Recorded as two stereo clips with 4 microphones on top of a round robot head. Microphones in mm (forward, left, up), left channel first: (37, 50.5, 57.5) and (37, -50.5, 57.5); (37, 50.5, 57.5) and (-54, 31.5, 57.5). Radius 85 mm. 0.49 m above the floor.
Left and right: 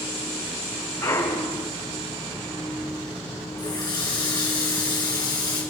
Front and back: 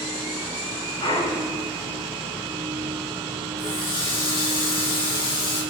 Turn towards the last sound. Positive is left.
turn(degrees=40)